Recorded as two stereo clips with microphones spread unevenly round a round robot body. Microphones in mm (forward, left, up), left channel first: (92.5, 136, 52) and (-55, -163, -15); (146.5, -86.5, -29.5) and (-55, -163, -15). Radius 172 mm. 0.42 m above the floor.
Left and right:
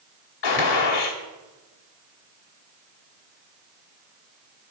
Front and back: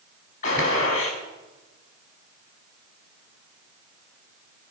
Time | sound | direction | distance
0.4 | a gunshot | 80° left | 2 m